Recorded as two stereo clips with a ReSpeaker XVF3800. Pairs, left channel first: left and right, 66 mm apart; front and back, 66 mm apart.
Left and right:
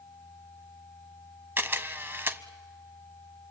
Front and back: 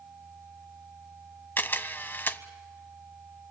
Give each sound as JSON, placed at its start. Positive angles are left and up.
{"t": 1.6, "sound": "a camera shutter", "azimuth_deg": -50, "distance_m": 0.8}